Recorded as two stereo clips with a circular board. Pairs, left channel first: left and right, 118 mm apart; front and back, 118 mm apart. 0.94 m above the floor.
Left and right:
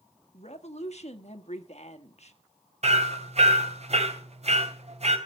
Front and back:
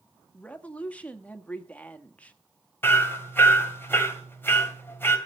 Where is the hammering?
75° right, 2.5 m.